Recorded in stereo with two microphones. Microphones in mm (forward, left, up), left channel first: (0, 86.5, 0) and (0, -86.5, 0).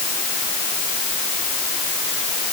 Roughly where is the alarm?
I don't hear an alarm.